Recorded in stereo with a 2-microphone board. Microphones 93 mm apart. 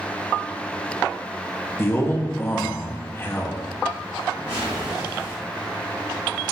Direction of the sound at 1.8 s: 25° left (ahead or behind).